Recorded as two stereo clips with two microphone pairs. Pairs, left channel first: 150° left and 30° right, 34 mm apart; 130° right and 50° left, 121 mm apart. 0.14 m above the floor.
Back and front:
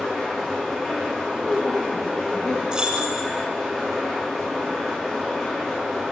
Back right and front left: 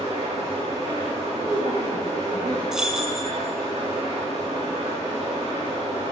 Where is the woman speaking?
65° left, 2 m.